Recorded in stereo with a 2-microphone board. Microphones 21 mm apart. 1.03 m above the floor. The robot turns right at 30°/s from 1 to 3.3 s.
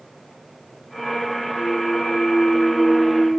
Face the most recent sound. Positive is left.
turn(degrees=135)